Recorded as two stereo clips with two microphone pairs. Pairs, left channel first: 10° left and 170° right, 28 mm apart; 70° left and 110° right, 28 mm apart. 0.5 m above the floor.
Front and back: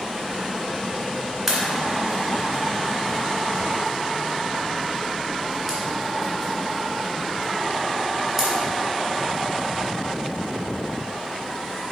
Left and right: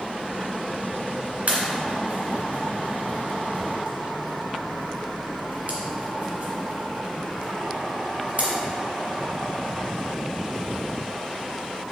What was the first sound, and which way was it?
A pop, 100° right.